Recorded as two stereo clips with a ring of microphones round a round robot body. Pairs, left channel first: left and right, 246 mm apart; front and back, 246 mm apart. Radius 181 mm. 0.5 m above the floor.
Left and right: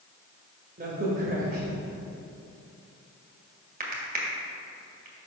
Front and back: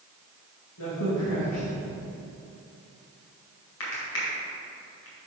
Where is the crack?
35° right, 1.8 m.